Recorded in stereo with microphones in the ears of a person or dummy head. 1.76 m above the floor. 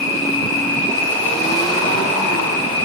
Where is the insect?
15° left (ahead or behind), 1.0 m.